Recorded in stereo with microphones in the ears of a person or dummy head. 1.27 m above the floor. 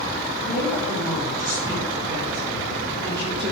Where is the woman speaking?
5° right (ahead or behind), 4.5 m; by 3.5 s 30° right (ahead or behind), 6 m.